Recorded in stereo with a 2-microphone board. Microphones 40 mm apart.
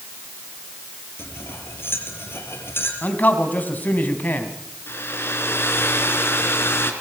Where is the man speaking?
50° left (ahead or behind), 4 m.